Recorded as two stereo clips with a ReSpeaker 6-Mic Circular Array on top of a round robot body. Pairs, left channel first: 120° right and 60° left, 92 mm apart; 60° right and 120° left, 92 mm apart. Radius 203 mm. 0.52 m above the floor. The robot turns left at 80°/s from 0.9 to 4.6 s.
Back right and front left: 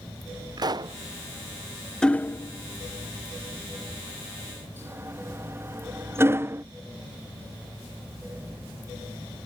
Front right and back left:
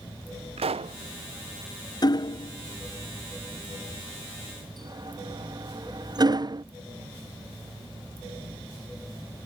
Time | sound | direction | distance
0.6 | a pop | 105° left | ?
2.0 | hammering | 40° right | ?